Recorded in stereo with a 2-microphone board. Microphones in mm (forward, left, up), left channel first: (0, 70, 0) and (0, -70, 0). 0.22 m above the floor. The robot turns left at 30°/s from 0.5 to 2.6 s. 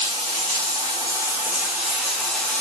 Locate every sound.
0.0 s running water: 130° right, 0.7 m; by 2.6 s 165° left, 0.7 m